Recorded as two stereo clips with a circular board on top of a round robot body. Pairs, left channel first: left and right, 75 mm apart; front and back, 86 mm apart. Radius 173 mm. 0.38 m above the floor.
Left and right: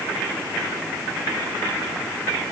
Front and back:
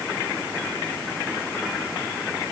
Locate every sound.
Only background noise.